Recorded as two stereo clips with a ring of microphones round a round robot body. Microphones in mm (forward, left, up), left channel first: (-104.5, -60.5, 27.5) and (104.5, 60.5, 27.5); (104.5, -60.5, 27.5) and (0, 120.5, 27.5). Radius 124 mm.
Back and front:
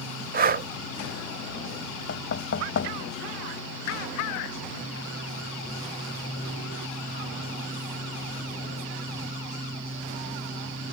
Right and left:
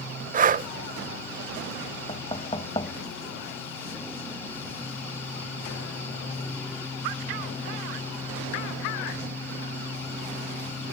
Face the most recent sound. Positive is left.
turn(degrees=-125)